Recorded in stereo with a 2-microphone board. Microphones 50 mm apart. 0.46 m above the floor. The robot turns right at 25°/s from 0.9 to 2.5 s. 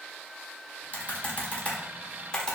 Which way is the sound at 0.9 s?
35° left (ahead or behind).